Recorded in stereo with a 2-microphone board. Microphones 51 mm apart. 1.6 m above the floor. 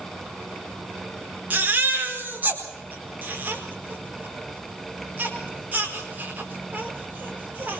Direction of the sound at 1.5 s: 35° right (ahead or behind).